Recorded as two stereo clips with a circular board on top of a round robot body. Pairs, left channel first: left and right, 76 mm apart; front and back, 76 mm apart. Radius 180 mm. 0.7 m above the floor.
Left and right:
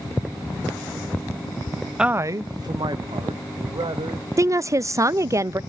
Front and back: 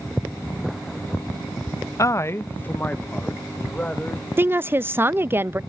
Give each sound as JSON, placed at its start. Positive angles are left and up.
{"t": 2.0, "sound": "a man speaking", "azimuth_deg": -10, "distance_m": 0.6}
{"t": 4.4, "sound": "a woman speaking", "azimuth_deg": -125, "distance_m": 0.6}